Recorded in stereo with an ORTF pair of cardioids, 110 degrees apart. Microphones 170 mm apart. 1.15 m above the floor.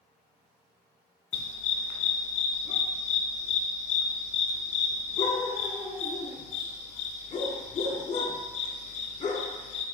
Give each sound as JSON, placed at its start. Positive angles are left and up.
{"t": 1.3, "sound": "a dog barking", "azimuth_deg": 40, "distance_m": 1.7}